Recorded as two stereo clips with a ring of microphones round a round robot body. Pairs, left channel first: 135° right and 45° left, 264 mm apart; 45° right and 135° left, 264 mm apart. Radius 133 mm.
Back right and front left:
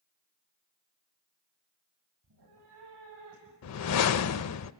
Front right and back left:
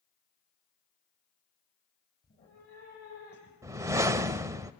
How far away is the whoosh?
About 0.6 m.